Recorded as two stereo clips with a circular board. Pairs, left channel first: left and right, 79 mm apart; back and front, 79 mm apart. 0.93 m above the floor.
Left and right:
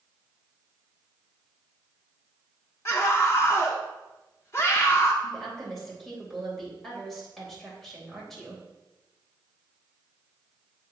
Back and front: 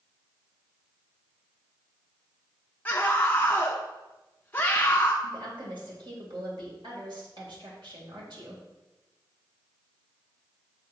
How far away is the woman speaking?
About 3.5 m.